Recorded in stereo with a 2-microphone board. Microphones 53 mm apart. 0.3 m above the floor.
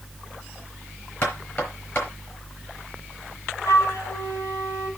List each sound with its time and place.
1.2 s knocking: 45° left (ahead or behind), 4.5 m
3.6 s a flute: 80° left, 2 m